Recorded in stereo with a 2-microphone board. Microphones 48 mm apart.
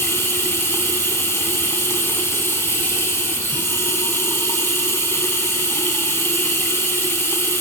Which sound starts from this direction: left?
Running water, at 0.0 s.